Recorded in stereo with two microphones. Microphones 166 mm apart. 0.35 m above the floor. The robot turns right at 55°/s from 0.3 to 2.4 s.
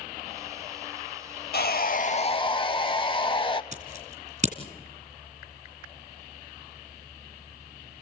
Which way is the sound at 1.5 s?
100° left.